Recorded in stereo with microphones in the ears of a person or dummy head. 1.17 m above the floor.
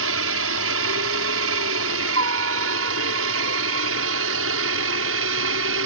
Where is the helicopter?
65° right (ahead or behind).